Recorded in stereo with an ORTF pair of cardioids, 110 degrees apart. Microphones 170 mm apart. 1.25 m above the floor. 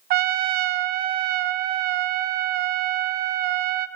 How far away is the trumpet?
About 0.7 m.